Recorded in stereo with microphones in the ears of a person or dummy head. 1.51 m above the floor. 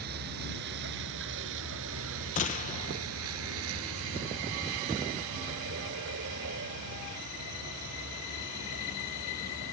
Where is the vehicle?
55° right (ahead or behind).